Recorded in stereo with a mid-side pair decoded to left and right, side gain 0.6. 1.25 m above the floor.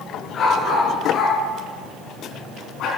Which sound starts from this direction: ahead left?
A dog barking, at 0.3 s.